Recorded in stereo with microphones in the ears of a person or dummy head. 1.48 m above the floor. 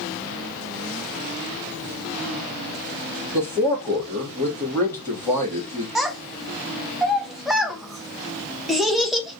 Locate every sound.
3.3 s a man speaking: 15° left (ahead or behind), 2.0 m
6.0 s a child speaking: centre (ahead or behind), 0.6 m